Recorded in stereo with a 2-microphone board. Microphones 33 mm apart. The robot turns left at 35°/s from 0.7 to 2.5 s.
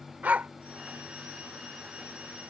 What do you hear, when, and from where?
0.2 s a dog barking: 60° right (ahead or behind)